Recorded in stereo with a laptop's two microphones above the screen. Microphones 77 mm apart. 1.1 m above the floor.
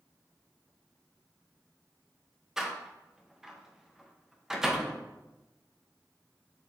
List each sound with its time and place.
2.6 s a door slam: 5° right (ahead or behind), 0.6 m